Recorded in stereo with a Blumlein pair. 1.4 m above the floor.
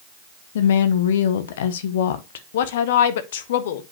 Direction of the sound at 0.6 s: 60° left.